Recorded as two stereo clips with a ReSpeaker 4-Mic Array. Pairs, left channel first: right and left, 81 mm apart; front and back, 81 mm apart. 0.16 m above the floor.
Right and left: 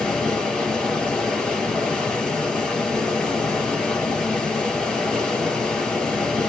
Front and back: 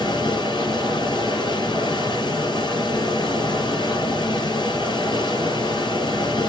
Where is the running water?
10° right, 2 m.